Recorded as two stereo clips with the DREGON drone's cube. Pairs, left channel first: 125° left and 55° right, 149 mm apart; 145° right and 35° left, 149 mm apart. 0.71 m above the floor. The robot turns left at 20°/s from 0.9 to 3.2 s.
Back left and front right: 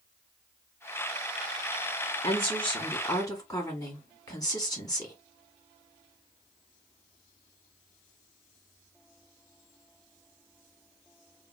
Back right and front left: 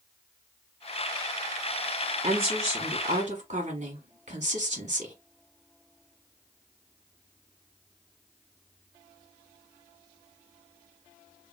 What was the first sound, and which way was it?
A woman speaking, 80° left.